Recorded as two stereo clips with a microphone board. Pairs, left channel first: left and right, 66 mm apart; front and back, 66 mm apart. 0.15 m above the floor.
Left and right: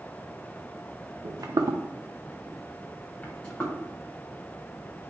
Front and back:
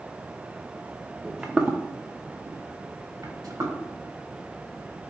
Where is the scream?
I don't hear a scream.